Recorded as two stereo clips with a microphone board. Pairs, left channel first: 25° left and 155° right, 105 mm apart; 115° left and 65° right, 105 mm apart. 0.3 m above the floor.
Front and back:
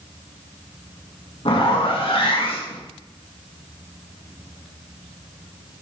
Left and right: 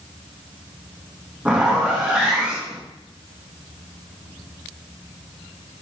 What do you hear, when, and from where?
1.4 s a zipper: 10° left, 3 m